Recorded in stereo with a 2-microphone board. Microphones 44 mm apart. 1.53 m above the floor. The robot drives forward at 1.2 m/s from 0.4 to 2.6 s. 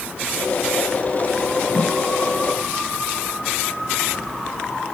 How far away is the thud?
About 4 m.